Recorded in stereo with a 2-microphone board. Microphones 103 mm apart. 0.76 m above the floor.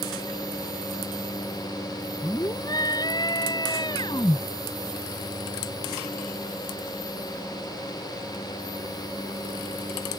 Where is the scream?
35° left (ahead or behind); by 4.4 s 40° left (ahead or behind).